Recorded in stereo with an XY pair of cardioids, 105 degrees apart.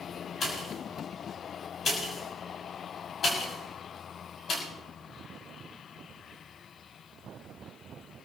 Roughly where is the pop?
Ahead left.